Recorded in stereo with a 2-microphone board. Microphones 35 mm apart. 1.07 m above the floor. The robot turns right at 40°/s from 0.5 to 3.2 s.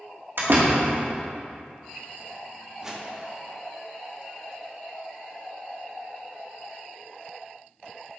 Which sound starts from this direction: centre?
A whoosh, at 2.8 s.